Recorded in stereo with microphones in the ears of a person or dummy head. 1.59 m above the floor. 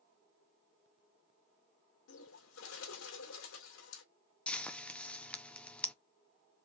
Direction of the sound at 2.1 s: 80° left.